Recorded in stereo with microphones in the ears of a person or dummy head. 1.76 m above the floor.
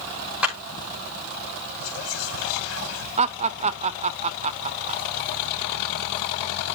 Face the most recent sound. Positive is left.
turn(degrees=-40)  # may be behind; listen again after turning